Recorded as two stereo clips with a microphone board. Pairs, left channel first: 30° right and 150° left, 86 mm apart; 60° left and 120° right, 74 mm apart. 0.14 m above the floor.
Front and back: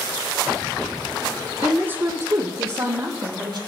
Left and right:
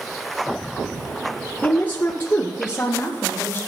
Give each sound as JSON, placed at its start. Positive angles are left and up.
{"t": 1.6, "sound": "a woman speaking", "azimuth_deg": 80, "distance_m": 1.2}